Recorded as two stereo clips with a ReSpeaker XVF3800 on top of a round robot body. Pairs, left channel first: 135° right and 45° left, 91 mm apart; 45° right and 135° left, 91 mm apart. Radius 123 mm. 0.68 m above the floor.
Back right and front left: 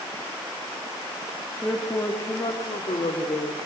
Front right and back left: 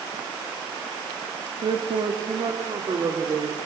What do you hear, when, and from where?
1.6 s a man speaking: 150° left, 1.7 m; by 3.6 s 160° right, 3 m